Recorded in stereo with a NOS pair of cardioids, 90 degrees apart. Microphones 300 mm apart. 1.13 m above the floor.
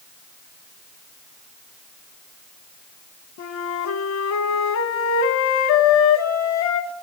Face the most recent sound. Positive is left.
turn(degrees=65)